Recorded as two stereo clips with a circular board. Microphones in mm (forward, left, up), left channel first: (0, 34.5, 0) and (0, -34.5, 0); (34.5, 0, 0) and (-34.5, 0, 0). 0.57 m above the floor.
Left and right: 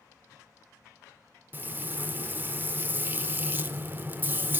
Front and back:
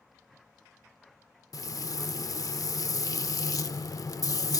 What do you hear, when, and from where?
1.5 s frying: 30° right, 0.5 m